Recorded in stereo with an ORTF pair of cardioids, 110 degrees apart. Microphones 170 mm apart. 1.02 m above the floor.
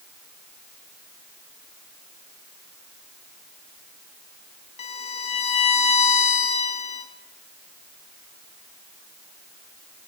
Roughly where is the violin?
Ahead left.